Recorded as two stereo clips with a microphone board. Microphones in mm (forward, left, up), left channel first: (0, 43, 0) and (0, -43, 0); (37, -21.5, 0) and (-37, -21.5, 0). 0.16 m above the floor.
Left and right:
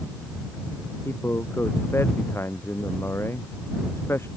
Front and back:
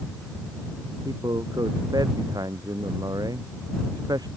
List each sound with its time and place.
1.1 s a man speaking: 150° left